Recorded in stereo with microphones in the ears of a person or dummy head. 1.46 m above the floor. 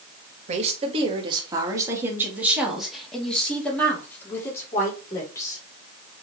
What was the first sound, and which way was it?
A woman speaking, 35° right (ahead or behind).